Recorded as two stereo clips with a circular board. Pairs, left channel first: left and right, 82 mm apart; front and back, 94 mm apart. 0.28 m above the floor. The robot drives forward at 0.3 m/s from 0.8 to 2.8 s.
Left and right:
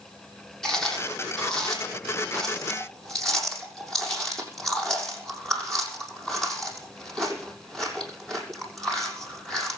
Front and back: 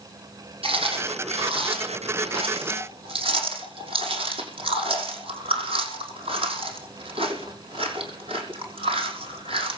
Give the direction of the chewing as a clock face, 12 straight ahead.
6 o'clock.